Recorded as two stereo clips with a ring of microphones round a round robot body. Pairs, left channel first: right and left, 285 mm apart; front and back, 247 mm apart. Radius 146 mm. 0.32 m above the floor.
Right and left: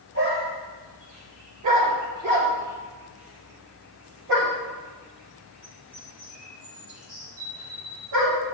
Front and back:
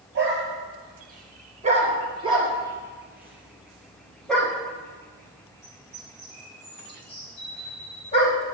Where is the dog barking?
135° left, 3 m; by 8.4 s 65° left, 6 m.